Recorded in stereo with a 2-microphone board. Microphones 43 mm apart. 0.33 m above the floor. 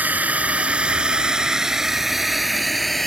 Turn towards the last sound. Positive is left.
turn(degrees=5)  # may be behind; listen again after turning